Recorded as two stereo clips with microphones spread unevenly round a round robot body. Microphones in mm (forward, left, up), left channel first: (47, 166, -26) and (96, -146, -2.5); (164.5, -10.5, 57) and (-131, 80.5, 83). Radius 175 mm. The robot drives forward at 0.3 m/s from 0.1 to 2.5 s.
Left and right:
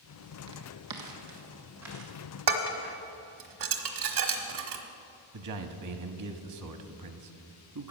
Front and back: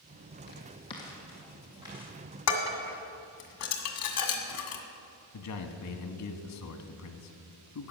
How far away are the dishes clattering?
About 1.5 m.